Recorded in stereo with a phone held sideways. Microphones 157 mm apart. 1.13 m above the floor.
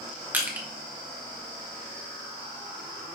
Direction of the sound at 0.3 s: 10° right (ahead or behind).